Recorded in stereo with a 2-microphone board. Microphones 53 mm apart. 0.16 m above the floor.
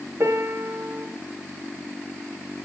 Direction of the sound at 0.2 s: 60° right (ahead or behind).